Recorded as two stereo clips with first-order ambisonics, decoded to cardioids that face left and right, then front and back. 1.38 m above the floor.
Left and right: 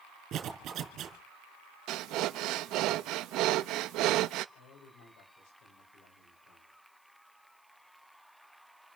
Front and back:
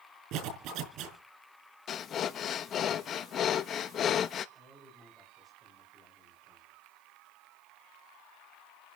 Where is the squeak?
I don't hear a squeak.